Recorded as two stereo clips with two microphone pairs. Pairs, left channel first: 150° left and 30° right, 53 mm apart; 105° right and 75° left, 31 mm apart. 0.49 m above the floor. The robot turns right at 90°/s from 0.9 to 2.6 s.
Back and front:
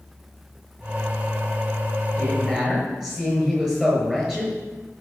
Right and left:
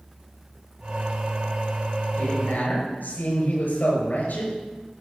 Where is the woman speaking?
145° right, 7 m; by 4.6 s 105° right, 7 m.